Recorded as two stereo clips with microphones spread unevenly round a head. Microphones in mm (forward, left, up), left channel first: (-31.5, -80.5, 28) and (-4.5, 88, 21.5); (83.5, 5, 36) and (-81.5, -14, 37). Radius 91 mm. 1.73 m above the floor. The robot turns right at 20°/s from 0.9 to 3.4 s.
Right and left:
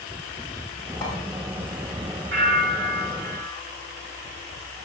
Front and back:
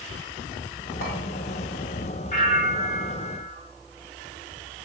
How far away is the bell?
About 2.5 m.